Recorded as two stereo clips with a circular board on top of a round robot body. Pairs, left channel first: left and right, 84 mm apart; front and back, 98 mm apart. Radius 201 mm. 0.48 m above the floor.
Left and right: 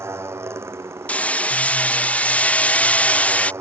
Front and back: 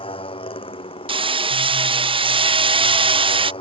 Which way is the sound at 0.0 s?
30° right.